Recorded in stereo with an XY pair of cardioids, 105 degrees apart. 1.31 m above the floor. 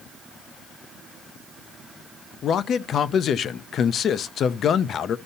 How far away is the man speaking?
About 0.6 m.